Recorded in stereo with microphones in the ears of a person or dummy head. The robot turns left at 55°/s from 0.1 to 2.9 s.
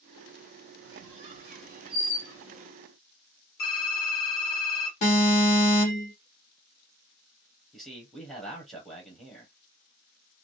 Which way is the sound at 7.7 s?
Centre (ahead or behind).